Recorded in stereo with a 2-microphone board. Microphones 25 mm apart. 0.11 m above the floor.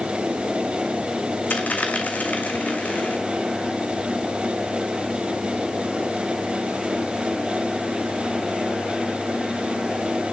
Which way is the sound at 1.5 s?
70° left (ahead or behind).